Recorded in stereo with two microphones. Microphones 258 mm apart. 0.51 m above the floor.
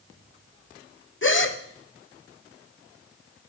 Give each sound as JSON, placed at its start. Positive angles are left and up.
{"t": 1.2, "sound": "a gasp", "side_deg": 50, "distance_m": 0.9}